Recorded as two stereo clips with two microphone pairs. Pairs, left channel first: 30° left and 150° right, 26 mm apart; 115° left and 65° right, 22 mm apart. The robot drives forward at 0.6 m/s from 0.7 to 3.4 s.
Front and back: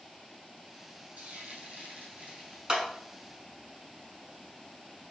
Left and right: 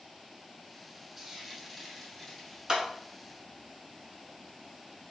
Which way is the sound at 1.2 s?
145° right.